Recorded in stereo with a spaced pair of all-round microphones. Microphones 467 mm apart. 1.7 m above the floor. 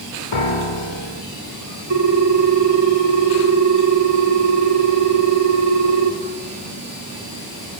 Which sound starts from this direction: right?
A ringtone, at 1.9 s.